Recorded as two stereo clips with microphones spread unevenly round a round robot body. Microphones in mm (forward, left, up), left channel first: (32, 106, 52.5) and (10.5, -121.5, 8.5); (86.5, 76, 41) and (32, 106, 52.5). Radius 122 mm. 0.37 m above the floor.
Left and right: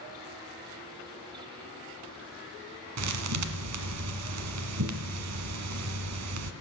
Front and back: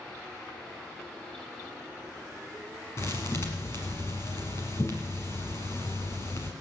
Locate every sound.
3.0 s a thud: 90° right, 1.3 m